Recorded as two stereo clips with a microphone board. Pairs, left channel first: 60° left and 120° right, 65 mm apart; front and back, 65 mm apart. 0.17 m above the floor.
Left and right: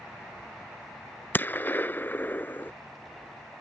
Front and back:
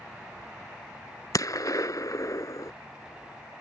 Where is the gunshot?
5° left.